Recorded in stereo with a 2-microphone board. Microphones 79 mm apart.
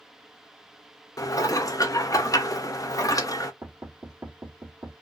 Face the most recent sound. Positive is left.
turn(degrees=-40)  # may be behind; listen again after turning